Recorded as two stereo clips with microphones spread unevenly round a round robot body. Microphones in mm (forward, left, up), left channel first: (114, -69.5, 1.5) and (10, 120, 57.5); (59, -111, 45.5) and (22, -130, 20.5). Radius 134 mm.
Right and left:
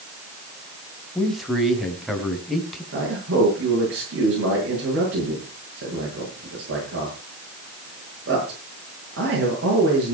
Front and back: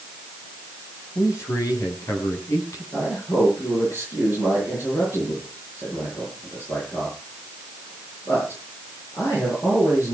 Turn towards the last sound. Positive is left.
turn(degrees=80)